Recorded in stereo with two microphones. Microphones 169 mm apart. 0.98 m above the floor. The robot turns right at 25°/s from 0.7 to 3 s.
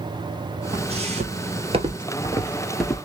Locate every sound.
0.7 s footsteps: 35° right (ahead or behind), 1.4 m; by 3.0 s 10° left (ahead or behind), 1.0 m